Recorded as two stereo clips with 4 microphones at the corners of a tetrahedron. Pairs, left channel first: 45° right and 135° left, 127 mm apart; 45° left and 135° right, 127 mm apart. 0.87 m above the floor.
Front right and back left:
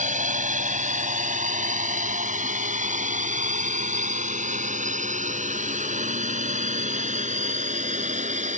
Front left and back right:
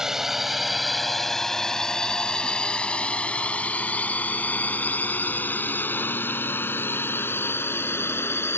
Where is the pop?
I don't hear a pop.